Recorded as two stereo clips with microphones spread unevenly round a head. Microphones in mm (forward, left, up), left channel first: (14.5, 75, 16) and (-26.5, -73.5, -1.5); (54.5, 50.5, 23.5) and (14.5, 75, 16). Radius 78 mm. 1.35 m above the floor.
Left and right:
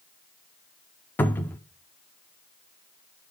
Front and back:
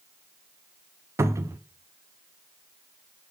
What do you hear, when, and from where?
1.2 s a cupboard door: 155° left, 0.6 m